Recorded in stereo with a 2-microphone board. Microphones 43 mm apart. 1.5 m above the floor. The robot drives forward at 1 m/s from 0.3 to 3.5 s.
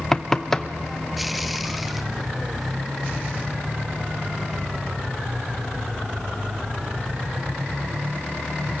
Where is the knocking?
10° left (ahead or behind), 0.6 m.